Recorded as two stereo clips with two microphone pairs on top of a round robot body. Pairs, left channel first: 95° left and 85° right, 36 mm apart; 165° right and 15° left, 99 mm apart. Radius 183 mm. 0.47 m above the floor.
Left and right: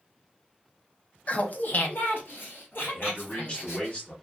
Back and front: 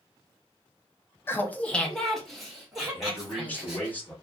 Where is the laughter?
135° left, 0.8 m; by 3.9 s 95° left, 2.5 m.